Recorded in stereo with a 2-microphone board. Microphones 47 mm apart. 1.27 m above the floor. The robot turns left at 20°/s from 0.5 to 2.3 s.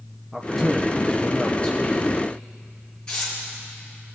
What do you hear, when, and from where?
0.3 s a man speaking: 175° left, 0.8 m; by 2.2 s 140° left, 0.8 m
3.1 s tearing paper: 20° left (ahead or behind), 4.5 m